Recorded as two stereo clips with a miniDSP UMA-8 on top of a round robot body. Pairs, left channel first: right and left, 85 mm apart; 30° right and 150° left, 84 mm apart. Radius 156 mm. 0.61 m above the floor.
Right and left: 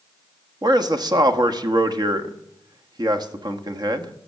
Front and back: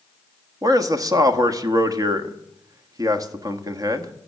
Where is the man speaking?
110° left, 1.5 m.